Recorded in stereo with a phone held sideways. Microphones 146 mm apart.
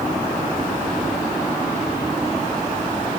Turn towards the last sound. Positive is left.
No sound to turn to.